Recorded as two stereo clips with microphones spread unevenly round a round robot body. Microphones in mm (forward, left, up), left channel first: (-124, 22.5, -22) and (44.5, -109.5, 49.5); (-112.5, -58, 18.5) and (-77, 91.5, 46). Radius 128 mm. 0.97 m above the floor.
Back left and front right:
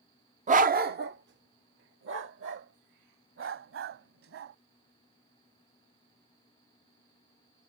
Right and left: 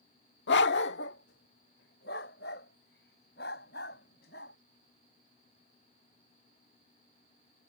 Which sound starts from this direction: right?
A dog barking, at 0.5 s.